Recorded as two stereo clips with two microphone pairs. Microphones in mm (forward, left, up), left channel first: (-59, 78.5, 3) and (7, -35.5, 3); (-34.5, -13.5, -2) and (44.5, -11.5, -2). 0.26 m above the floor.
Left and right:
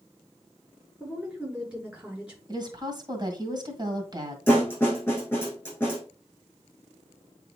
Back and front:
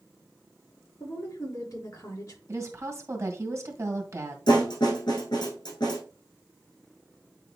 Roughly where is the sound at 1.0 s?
Behind right.